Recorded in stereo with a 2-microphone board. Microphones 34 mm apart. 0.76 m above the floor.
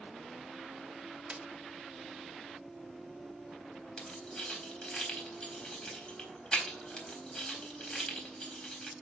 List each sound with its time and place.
1.3 s a snare drum: 35° right (ahead or behind), 1.4 m
4.0 s keys jangling: 25° left (ahead or behind), 4 m